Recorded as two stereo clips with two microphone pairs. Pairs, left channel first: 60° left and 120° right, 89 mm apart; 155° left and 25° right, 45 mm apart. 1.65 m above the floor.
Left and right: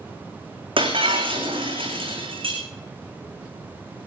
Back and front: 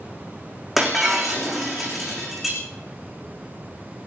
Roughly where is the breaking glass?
Right.